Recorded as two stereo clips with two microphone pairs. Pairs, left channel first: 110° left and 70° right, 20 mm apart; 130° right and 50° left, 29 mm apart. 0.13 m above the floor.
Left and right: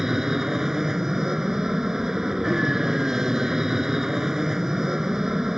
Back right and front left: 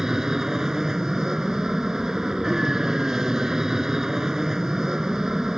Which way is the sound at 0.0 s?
20° right.